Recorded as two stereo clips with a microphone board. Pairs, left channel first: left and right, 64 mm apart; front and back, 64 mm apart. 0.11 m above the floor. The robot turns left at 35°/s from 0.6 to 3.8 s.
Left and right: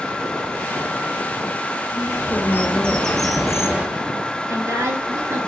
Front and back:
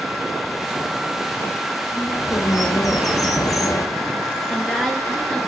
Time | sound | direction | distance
1.9 | a bird | 45° left | 0.8 m
4.5 | a woman speaking | 90° right | 1.9 m